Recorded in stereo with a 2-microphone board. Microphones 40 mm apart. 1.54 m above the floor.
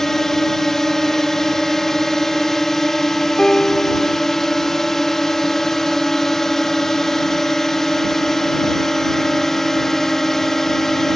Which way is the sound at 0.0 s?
10° left (ahead or behind).